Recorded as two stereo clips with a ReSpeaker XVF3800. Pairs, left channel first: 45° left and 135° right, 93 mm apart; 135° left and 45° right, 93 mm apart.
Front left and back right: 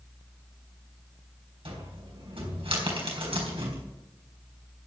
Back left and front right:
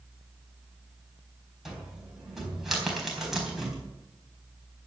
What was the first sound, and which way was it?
A cupboard door, 130° right.